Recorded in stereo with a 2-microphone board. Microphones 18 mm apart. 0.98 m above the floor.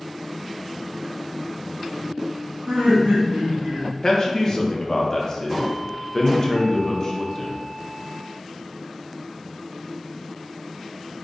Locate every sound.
2.7 s laughter: 70° right (ahead or behind), 1.5 m
4.0 s a man speaking: 40° left (ahead or behind), 0.6 m